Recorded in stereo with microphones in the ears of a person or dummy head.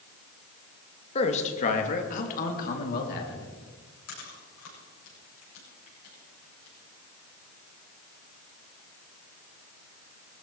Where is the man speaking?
35° left (ahead or behind), 2 m; by 3.5 s 50° left (ahead or behind), 4 m.